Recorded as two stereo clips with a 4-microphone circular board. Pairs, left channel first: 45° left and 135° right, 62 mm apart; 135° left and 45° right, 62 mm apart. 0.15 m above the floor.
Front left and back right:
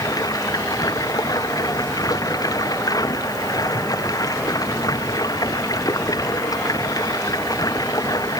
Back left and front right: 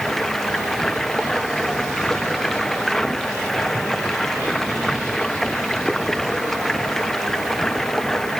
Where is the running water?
50° left.